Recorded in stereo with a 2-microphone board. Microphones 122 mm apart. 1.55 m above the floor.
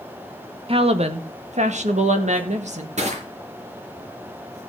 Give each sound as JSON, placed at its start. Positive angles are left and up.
{"t": 0.7, "sound": "a woman speaking", "side_deg": -50, "distance_m": 1.3}
{"t": 3.0, "sound": "crushing", "side_deg": -65, "distance_m": 4.5}